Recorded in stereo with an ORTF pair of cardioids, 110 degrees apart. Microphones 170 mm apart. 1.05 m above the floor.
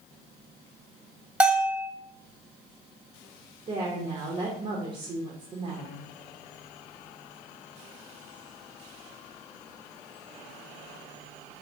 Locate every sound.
1.4 s a bell: 5° right, 0.9 m
3.7 s a woman speaking: 35° right, 0.7 m